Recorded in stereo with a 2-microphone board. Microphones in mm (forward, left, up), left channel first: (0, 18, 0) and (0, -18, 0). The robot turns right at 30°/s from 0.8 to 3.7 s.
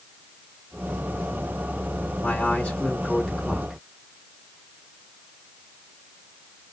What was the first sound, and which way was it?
A man speaking, 150° left.